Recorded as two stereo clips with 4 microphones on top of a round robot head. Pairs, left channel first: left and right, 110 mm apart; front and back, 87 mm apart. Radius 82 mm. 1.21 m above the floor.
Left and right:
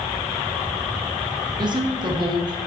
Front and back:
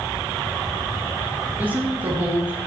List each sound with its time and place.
1.6 s a woman speaking: 115° right, 0.7 m